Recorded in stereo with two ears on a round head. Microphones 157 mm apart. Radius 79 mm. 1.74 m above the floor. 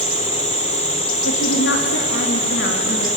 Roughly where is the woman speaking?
Left.